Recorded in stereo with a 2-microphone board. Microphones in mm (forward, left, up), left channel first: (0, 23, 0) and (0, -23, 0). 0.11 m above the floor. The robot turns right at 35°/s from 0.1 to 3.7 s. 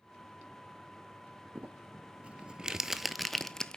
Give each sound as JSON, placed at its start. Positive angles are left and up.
{"t": 1.6, "sound": "crumpling", "side_deg": -45, "distance_m": 0.5}